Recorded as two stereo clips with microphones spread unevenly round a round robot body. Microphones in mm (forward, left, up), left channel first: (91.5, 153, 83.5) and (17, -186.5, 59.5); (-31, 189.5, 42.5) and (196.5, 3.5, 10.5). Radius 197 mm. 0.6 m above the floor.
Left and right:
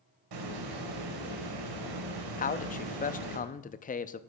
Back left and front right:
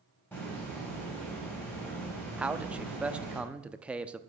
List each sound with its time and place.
0.3 s a hiss: 135° right, 1.8 m
2.4 s a man speaking: 25° left, 0.6 m